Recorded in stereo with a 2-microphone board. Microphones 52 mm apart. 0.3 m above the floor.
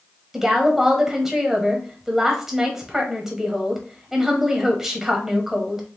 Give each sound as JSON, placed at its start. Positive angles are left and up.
{"t": 0.3, "sound": "a woman speaking", "side_deg": -5, "distance_m": 1.3}